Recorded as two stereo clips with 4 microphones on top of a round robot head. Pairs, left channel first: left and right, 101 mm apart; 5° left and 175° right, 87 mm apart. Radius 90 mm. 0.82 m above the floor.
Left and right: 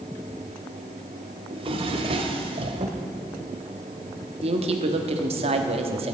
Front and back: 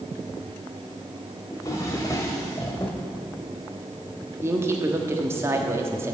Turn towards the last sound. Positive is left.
turn(degrees=-110)